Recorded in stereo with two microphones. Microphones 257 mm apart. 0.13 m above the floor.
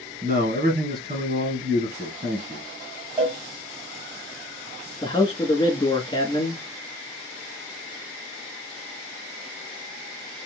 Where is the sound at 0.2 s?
35° right (ahead or behind), 1.8 m.